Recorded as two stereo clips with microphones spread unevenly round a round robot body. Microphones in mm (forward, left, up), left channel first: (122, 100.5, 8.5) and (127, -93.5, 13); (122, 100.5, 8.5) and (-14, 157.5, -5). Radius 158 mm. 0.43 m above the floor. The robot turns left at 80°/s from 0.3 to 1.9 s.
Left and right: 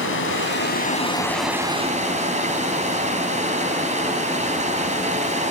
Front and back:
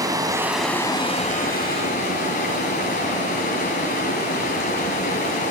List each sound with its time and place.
0.0 s running water: 90° left, 3 m; by 5.5 s 35° right, 3 m